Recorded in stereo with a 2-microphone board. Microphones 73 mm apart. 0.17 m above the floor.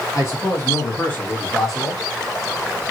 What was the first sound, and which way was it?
A man speaking, 45° left (ahead or behind).